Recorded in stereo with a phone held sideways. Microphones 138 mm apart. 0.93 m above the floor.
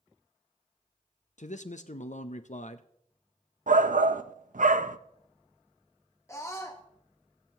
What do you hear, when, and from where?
1.4 s a man speaking: 60° left (ahead or behind), 0.6 m
3.7 s a shout: 70° right (ahead or behind), 0.5 m
6.3 s a scream: 20° left (ahead or behind), 1.0 m